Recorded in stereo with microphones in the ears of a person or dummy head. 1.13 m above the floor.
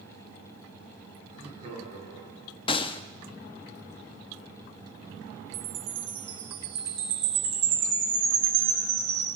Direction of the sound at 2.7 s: 30° left (ahead or behind).